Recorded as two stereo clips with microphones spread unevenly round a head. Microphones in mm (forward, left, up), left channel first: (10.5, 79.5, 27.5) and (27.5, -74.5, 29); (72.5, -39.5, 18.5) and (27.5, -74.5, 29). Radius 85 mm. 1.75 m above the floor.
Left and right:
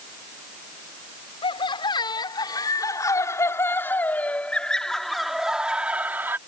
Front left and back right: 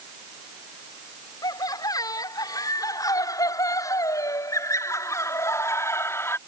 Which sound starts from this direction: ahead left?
Laughter, at 1.4 s.